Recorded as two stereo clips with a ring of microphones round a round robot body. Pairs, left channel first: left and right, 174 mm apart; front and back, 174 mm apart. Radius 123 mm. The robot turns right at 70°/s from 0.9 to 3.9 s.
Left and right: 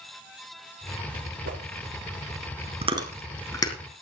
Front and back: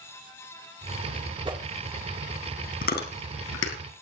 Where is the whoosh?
120° right, 2.5 m; by 1.6 s 110° right, 2.5 m.